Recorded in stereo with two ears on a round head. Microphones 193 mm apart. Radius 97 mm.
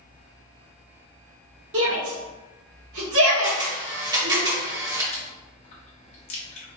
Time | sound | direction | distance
1.7 | a shout | 60° right (ahead or behind) | 1.4 m
3.4 | a camera shutter | 20° right (ahead or behind) | 1.3 m
5.1 | chewing | 30° left (ahead or behind) | 0.9 m